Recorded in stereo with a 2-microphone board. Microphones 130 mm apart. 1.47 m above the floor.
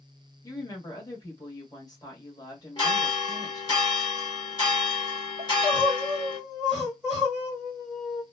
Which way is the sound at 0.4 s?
30° left (ahead or behind).